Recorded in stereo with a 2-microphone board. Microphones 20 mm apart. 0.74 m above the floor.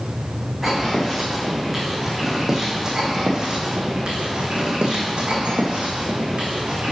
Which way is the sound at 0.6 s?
10° right (ahead or behind).